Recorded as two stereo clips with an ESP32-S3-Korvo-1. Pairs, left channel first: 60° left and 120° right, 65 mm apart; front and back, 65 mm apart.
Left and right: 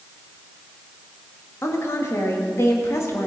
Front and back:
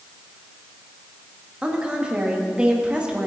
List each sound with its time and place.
1.6 s a woman speaking: 105° left, 1.7 m